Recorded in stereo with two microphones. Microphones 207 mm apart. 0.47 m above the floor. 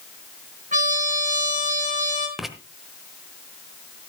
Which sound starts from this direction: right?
A trumpet, at 0.7 s.